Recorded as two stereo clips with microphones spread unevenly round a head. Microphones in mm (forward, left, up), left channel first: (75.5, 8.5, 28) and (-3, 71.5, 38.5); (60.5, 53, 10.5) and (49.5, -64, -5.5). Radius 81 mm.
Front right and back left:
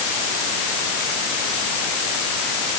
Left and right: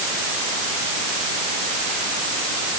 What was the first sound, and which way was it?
Only background noise.